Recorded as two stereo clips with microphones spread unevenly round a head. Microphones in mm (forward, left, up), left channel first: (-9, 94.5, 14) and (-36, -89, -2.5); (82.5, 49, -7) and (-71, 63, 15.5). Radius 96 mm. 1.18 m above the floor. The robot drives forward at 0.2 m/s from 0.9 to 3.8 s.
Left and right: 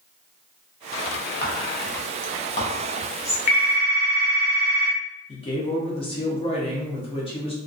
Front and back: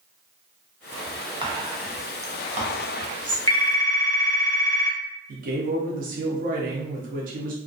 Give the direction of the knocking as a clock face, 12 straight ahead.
I don't hear knocking.